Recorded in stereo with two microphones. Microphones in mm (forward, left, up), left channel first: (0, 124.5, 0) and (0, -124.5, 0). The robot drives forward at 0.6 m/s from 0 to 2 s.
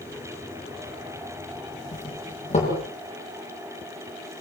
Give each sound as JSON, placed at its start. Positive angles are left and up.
{"t": 1.9, "sound": "a doorbell", "side_deg": 25, "distance_m": 9.5}